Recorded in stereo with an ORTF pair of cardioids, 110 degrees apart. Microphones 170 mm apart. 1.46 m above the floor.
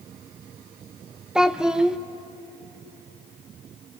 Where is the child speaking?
5° right, 0.6 m.